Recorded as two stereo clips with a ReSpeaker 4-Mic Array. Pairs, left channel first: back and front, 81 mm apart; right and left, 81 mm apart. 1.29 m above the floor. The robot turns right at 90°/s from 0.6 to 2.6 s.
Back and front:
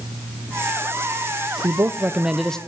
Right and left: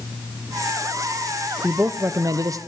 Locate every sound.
1.6 s a man speaking: 20° left, 0.7 m; by 2.6 s 105° left, 0.7 m